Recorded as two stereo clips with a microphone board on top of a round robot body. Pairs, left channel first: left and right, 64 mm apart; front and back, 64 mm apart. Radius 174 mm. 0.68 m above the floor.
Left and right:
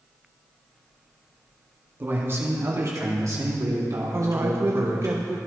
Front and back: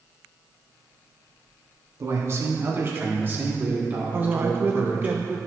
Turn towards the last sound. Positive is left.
turn(degrees=-130)